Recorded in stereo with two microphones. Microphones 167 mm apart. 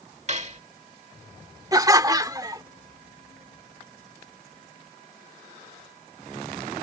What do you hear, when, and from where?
0.3 s cutlery clinking: 40° right (ahead or behind)
1.7 s laughter: 20° right (ahead or behind)